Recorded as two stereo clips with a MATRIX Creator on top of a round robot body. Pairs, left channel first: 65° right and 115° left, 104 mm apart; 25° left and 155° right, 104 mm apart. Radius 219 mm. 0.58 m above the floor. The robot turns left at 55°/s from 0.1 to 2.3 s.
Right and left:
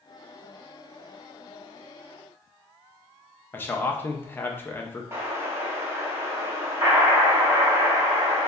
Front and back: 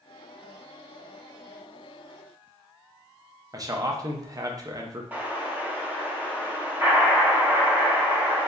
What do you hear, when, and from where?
3.5 s a man speaking: 125° right, 0.8 m
5.1 s an explosion: 145° left, 1.2 m